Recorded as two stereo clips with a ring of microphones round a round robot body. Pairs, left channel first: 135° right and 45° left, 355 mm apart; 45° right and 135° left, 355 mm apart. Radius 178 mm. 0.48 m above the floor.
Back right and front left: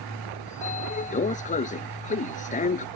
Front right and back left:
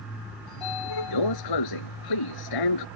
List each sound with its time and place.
0.5 s a sliding door: 65° right